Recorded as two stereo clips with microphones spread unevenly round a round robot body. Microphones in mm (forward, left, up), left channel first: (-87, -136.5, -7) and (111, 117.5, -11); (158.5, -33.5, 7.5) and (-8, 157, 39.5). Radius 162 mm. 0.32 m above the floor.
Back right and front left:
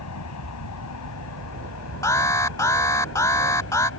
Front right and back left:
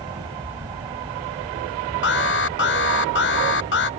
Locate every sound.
0.0 s an aircraft: 155° right; by 4.0 s 160° right
2.0 s an alarm: 50° right